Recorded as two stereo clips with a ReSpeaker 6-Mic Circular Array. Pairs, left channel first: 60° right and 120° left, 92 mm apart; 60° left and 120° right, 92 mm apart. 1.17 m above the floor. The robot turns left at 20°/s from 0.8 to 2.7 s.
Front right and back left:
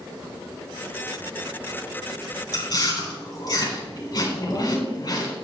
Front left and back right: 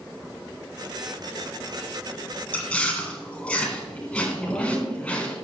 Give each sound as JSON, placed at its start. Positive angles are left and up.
{"t": 2.5, "sound": "chewing", "azimuth_deg": -10, "distance_m": 4.0}
{"t": 4.4, "sound": "a woman speaking", "azimuth_deg": -15, "distance_m": 4.5}